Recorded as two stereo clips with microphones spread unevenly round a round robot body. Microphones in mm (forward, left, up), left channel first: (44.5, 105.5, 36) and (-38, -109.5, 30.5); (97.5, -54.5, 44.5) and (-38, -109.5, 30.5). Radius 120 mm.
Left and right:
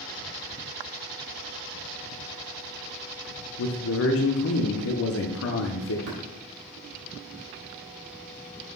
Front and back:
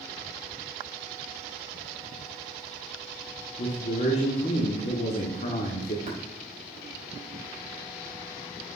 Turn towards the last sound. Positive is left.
turn(degrees=-125)